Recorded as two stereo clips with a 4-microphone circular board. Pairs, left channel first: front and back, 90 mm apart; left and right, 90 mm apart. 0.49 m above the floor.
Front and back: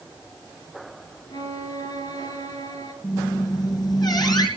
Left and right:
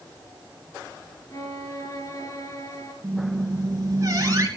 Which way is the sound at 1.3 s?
40° left.